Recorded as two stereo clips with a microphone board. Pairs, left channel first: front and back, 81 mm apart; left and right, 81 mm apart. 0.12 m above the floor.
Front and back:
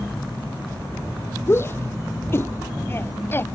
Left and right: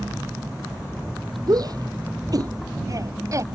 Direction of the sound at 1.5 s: 60° right.